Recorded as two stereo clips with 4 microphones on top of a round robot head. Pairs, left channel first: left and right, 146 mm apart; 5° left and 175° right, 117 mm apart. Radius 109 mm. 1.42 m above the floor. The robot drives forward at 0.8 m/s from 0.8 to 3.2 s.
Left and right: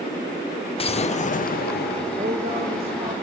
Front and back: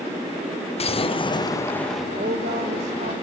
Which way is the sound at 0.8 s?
40° left.